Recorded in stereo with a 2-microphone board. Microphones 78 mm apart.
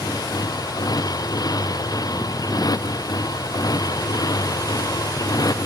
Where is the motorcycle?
55° left (ahead or behind).